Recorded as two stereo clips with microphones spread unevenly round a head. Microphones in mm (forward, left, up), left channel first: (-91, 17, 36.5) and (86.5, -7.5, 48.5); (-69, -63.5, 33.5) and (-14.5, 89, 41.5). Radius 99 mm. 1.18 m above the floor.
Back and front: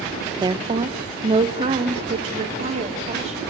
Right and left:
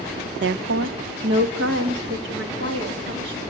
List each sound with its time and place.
0.4 s a woman speaking: 60° left, 0.6 m; by 3.4 s 45° left, 3 m